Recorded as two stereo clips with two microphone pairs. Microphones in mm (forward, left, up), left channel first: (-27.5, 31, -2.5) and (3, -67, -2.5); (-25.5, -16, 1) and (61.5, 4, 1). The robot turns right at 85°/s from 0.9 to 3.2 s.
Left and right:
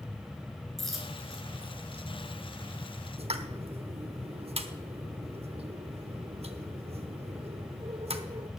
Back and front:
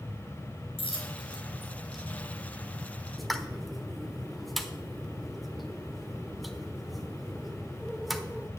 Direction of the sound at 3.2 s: 75° right.